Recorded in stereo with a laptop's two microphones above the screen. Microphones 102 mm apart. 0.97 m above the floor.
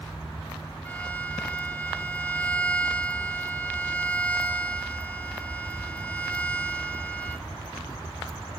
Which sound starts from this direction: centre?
A violin, at 0.8 s.